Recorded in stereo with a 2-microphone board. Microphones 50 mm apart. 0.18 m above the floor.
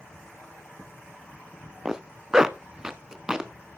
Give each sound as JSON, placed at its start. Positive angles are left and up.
{"t": 1.9, "sound": "a zipper", "side_deg": -10, "distance_m": 0.6}